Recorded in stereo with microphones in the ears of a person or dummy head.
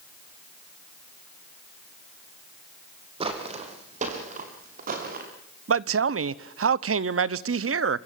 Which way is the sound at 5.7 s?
70° right (ahead or behind).